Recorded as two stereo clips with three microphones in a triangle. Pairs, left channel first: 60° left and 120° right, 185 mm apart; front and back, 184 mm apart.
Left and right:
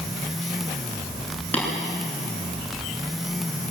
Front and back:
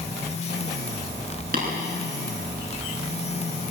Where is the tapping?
140° left, 9.5 m.